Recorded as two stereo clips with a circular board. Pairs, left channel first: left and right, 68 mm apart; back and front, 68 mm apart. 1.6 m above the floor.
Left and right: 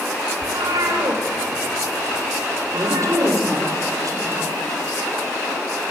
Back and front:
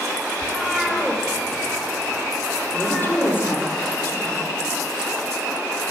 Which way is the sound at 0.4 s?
90° right.